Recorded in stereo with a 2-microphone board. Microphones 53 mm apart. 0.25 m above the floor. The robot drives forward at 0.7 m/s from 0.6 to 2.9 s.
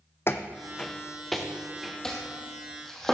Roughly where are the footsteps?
Left.